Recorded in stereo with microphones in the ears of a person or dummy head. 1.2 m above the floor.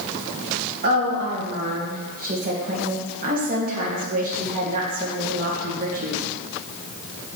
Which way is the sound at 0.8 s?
40° right (ahead or behind).